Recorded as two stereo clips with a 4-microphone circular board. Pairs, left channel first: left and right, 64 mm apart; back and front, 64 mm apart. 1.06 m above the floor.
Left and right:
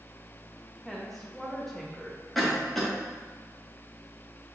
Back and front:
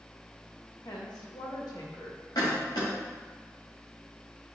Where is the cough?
Straight behind, 1.4 m.